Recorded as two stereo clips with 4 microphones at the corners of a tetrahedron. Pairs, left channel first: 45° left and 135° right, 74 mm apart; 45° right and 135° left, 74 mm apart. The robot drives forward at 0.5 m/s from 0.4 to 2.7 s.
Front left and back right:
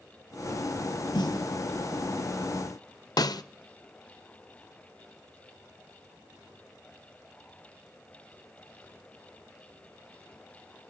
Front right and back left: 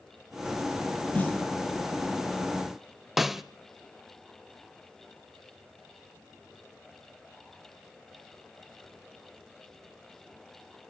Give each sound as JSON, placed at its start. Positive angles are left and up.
{"t": 1.1, "sound": "a snare drum", "azimuth_deg": 25, "distance_m": 2.0}
{"t": 3.2, "sound": "a snare drum", "azimuth_deg": 50, "distance_m": 0.5}